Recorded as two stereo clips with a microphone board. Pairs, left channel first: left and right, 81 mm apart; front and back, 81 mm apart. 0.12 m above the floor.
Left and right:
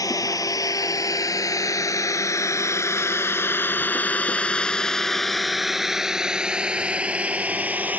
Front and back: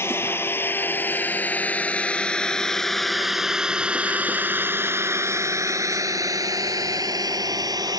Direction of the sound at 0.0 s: 55° left.